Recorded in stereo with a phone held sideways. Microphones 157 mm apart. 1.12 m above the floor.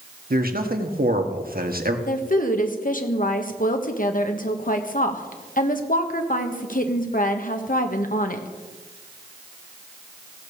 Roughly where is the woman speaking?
Left.